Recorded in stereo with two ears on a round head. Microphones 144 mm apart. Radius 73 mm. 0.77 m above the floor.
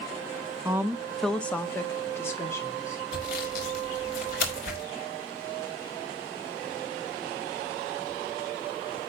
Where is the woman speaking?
15° right (ahead or behind), 0.5 m; by 3.0 s 15° left (ahead or behind), 2 m.